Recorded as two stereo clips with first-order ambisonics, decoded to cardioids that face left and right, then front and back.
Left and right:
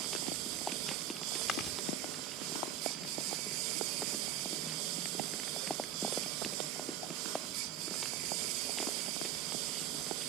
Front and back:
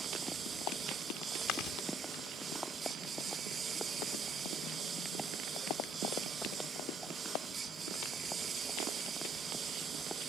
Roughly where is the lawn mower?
Right.